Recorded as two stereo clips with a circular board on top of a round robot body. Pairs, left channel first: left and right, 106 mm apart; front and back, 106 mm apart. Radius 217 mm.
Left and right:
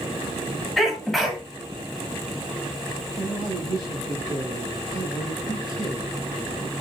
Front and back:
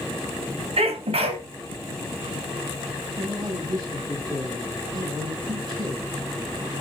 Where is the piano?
No piano in this recording.